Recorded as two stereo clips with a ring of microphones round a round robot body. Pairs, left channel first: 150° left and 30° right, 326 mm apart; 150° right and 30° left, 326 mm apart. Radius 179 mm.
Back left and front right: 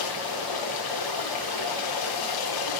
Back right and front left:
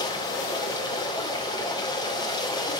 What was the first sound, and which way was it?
Running water, 130° left.